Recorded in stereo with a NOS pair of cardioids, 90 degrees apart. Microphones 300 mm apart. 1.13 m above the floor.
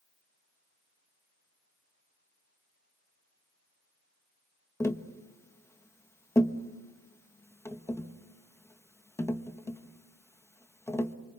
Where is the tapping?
10° left, 1.3 m.